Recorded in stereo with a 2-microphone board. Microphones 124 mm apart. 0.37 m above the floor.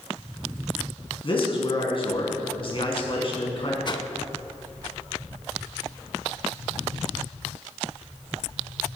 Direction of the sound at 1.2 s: 45° left (ahead or behind).